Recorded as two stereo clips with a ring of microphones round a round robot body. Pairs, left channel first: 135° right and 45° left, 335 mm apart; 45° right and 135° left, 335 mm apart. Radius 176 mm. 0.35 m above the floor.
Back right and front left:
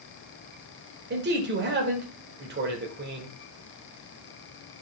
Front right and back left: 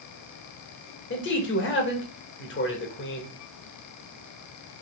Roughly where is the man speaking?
Ahead.